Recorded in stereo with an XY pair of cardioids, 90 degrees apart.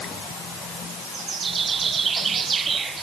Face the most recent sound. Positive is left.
No sound to turn to.